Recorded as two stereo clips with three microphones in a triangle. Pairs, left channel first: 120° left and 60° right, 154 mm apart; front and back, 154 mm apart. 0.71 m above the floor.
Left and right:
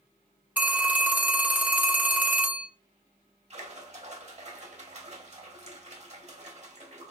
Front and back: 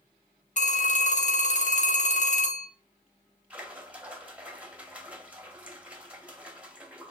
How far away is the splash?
About 0.7 m.